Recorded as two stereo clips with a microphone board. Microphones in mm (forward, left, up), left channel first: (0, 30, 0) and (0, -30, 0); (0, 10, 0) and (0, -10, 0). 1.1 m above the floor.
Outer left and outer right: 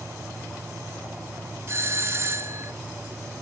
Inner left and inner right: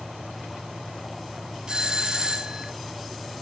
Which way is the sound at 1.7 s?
40° right (ahead or behind).